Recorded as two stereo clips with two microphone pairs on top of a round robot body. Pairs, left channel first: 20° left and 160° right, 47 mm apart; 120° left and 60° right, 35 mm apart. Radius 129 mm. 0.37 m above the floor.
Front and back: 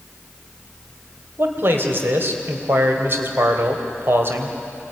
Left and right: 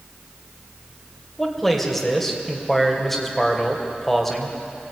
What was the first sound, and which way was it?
A man speaking, 160° right.